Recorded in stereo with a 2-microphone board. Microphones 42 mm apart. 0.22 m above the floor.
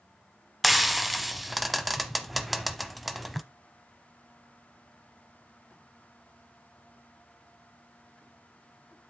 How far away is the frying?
About 0.8 m.